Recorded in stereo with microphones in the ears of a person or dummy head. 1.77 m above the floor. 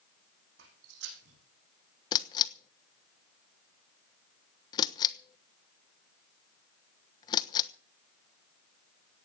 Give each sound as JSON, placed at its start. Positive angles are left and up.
{"t": 0.6, "sound": "footsteps", "side_deg": -70, "distance_m": 6.0}
{"t": 2.1, "sound": "a camera shutter", "side_deg": 25, "distance_m": 1.2}